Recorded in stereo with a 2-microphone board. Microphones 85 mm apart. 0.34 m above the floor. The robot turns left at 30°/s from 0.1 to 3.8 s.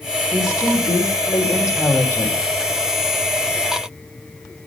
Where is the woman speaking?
100° left, 2 m; by 2.4 s 35° left, 2 m.